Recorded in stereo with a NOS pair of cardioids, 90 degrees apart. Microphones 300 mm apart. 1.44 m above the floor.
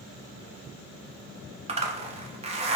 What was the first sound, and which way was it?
A zipper, 20° right.